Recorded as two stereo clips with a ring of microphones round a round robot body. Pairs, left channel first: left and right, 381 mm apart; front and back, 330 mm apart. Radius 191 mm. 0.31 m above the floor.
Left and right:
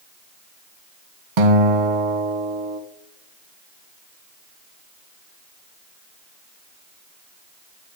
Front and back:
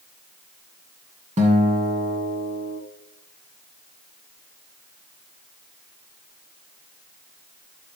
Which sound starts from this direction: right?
A guitar, at 1.4 s.